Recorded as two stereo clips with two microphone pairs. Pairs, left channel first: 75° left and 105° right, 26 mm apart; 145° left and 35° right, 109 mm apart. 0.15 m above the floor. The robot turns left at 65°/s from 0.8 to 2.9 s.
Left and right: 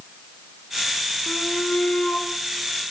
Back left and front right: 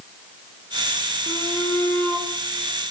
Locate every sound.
1.3 s a shout: 120° left, 6 m; by 2.3 s 50° left, 6 m